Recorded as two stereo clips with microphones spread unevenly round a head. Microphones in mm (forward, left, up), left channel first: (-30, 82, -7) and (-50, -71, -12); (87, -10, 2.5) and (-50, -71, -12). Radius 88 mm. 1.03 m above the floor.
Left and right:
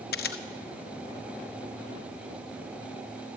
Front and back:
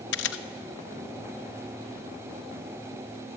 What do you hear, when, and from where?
0.1 s a camera shutter: 40° left, 1.1 m